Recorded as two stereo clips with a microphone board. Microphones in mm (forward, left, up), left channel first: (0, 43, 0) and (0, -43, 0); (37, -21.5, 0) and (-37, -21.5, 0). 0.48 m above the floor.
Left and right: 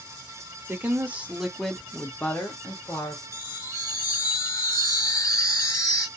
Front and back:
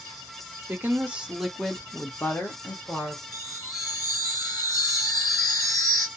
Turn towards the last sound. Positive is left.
turn(degrees=35)